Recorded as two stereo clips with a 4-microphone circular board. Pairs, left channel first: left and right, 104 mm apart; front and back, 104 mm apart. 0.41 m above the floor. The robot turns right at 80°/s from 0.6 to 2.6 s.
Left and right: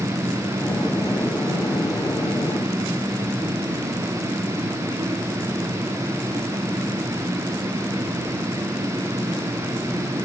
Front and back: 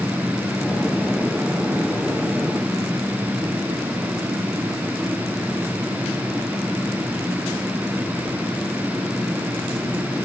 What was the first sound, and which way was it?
Only background noise.